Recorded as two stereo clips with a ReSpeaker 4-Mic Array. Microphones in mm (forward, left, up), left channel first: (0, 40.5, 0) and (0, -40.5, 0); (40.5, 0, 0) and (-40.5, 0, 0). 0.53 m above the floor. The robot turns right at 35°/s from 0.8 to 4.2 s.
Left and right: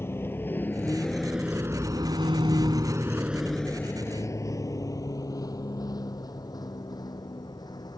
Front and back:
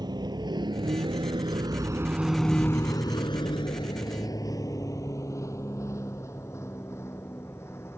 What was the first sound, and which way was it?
A vehicle, 150° left.